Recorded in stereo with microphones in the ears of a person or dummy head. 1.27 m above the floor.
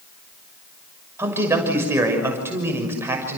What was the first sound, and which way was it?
A man speaking, 15° right (ahead or behind).